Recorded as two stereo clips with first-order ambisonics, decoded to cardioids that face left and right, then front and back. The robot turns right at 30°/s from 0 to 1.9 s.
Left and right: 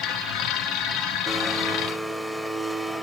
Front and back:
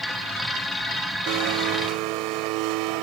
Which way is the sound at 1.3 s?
165° left.